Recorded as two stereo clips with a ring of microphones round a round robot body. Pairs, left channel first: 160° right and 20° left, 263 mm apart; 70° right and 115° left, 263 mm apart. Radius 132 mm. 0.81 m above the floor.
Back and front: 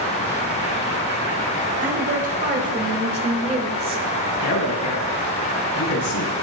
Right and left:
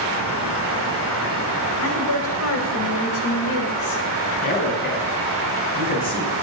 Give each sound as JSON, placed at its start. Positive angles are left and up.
{"t": 1.8, "sound": "a woman speaking", "azimuth_deg": -35, "distance_m": 5.0}
{"t": 4.4, "sound": "a man speaking", "azimuth_deg": -125, "distance_m": 6.5}